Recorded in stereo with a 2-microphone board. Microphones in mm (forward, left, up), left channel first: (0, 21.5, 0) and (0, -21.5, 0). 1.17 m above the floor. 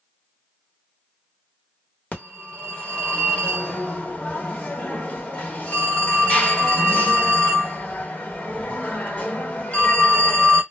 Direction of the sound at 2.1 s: 30° left (ahead or behind).